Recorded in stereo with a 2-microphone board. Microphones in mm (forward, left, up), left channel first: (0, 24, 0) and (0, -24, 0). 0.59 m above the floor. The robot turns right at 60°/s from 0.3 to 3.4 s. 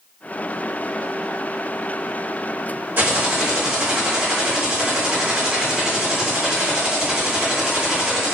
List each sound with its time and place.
3.0 s typing on a keyboard: 45° right (ahead or behind), 0.9 m; by 8.3 s 15° right (ahead or behind), 0.9 m